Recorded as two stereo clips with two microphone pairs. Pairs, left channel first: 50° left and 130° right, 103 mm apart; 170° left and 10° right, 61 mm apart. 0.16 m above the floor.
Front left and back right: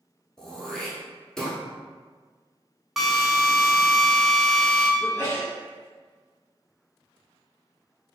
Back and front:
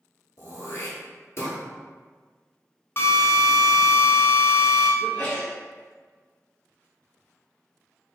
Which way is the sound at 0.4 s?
135° left.